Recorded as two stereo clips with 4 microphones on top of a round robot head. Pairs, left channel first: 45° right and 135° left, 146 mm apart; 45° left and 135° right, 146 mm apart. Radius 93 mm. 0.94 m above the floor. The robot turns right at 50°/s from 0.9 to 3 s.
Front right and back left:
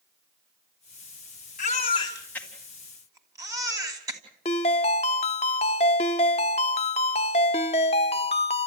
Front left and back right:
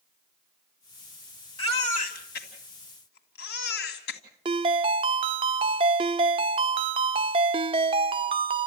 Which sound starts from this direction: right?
A ringtone, at 4.5 s.